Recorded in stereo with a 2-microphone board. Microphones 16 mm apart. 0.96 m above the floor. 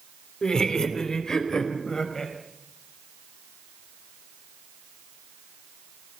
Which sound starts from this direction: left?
Laughter, at 0.4 s.